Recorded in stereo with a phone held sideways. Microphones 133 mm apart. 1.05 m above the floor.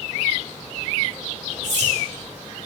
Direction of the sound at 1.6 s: 60° right (ahead or behind).